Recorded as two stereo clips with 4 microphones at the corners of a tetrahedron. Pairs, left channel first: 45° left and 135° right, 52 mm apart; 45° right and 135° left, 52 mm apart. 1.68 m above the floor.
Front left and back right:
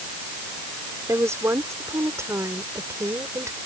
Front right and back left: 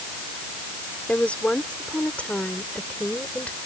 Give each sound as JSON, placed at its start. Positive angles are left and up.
{"t": 1.1, "sound": "a woman speaking", "azimuth_deg": -110}